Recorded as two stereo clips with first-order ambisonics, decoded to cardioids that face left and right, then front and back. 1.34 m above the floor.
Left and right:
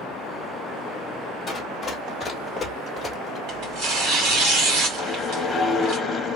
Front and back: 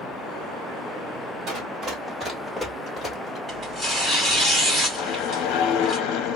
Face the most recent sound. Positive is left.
turn(degrees=15)